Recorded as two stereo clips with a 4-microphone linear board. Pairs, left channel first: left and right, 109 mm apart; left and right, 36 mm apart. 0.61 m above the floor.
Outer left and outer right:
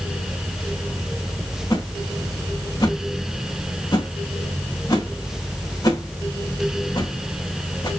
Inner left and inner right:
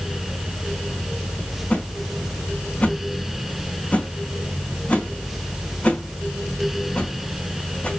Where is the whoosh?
35° left (ahead or behind), 3 m.